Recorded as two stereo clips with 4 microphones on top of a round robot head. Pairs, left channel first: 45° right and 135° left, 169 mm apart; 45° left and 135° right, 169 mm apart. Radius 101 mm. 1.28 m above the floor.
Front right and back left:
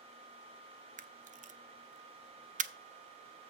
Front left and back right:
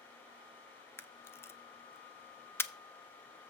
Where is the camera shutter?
115° left, 0.6 m.